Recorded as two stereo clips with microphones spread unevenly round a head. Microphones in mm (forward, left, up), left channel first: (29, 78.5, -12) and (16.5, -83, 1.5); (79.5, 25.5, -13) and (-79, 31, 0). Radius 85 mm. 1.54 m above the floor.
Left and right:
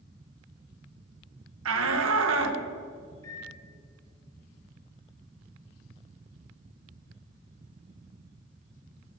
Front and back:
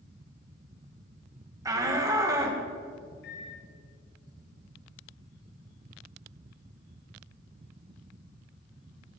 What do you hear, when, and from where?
1.6 s a shout: 110° right, 2.0 m
3.2 s a microwave: 15° left, 4 m